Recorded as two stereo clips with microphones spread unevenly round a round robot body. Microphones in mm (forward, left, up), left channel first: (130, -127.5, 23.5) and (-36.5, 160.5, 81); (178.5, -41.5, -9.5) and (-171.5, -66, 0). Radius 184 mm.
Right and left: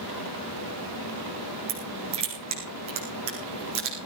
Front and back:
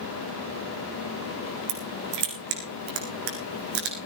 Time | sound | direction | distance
1.7 | crushing | 165° right | 4.5 m